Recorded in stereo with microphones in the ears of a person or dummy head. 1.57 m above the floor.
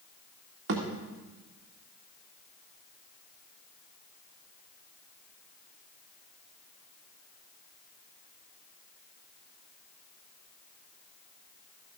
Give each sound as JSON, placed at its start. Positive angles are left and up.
{"t": 0.7, "sound": "a thud", "side_deg": -70, "distance_m": 2.0}